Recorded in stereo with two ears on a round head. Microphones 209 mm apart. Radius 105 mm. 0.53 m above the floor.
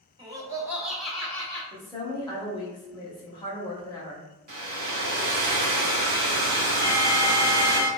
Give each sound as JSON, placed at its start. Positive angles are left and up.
{"t": 0.2, "sound": "laughter", "side_deg": -20, "distance_m": 0.7}
{"t": 1.7, "sound": "a woman speaking", "side_deg": 20, "distance_m": 0.9}
{"t": 4.5, "sound": "a hair dryer", "side_deg": -40, "distance_m": 0.7}
{"t": 6.8, "sound": "an alarm", "side_deg": -60, "distance_m": 1.0}